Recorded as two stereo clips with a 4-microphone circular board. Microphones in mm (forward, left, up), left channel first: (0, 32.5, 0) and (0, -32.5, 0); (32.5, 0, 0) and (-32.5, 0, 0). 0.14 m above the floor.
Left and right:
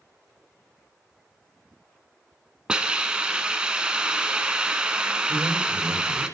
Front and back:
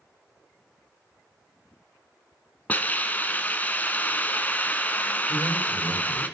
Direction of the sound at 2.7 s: 30° right.